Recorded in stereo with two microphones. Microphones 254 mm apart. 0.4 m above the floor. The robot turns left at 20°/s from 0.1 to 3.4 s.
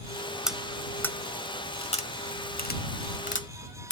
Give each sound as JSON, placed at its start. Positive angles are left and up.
{"t": 0.5, "sound": "cutlery clinking", "side_deg": 0}